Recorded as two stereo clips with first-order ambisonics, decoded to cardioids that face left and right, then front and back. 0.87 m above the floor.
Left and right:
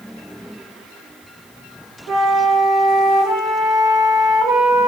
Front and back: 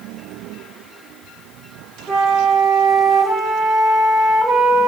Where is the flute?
115° right, 0.8 m.